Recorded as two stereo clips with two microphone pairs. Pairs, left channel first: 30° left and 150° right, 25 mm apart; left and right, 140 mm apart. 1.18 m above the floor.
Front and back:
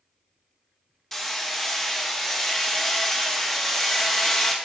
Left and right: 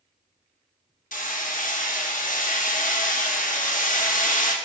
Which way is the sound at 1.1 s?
105° left.